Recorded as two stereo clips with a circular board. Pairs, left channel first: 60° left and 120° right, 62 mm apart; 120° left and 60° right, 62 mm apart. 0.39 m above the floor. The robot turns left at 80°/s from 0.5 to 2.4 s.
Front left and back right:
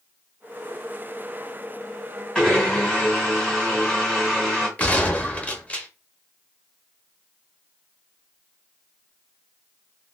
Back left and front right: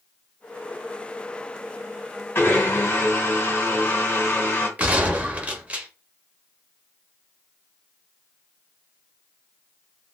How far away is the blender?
About 1.7 m.